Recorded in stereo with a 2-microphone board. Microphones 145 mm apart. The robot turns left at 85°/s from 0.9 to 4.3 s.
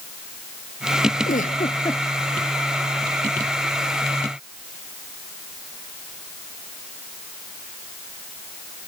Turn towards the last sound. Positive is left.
turn(degrees=180)